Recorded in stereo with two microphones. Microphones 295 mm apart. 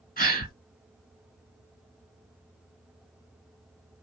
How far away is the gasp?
About 1.5 m.